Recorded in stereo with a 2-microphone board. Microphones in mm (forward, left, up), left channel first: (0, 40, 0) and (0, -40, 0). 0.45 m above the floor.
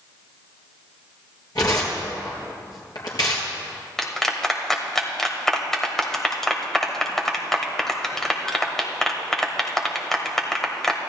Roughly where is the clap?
Centre.